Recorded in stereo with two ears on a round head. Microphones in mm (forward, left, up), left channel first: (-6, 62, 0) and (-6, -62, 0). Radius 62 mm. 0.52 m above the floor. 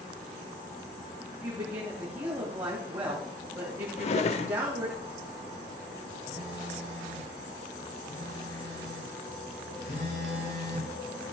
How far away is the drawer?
About 0.7 m.